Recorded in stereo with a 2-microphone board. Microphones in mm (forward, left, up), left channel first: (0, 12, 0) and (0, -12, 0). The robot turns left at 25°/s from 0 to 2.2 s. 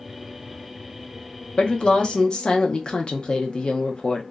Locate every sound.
1.6 s a woman speaking: 40° left (ahead or behind), 0.6 m; by 4.2 s 45° left (ahead or behind), 0.6 m